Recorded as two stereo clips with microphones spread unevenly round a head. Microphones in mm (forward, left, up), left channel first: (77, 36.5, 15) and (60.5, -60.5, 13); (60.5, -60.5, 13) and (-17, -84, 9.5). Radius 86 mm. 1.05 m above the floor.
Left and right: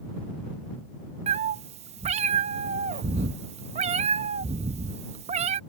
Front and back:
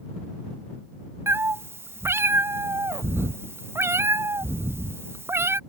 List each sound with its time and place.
1.3 s a cat meowing: 100° right